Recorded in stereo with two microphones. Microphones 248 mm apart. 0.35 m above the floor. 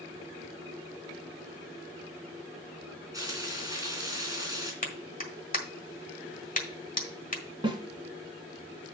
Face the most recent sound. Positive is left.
turn(degrees=-20)  # may be behind; listen again after turning